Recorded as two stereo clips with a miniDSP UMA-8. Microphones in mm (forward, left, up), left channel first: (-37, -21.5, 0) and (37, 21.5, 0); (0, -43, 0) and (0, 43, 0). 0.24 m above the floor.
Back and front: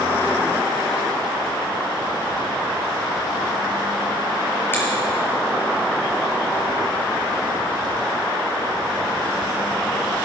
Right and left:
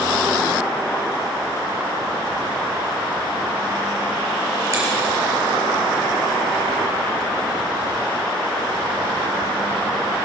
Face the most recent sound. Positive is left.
turn(degrees=145)